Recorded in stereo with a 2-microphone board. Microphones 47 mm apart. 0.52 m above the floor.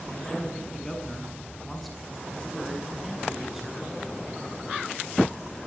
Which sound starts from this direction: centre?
A man speaking, at 0.1 s.